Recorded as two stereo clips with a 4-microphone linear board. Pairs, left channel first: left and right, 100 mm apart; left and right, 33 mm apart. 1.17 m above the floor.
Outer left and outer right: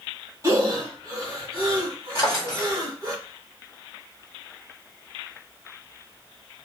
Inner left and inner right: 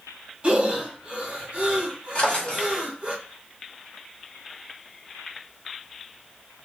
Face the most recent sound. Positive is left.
turn(degrees=40)  # may be behind; listen again after turning